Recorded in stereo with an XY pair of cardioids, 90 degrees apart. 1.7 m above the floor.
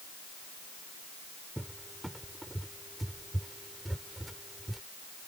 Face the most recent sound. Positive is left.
turn(degrees=-10)